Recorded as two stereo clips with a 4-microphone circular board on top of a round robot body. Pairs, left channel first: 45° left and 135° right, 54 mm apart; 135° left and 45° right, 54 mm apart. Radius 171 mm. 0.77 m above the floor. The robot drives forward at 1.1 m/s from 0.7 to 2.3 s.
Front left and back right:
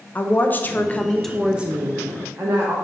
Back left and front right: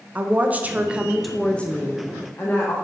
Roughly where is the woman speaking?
Ahead.